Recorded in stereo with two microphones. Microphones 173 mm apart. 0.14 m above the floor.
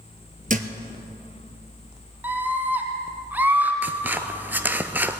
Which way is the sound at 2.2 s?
10° right (ahead or behind).